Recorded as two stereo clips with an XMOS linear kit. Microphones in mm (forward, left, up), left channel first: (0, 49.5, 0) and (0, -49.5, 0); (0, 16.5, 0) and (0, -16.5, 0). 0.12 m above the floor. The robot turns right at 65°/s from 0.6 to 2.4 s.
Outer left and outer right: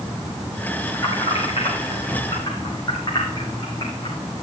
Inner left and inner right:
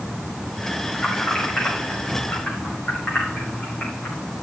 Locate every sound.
0.9 s keys jangling: 40° left (ahead or behind), 4 m; by 4.4 s 45° left (ahead or behind), 4 m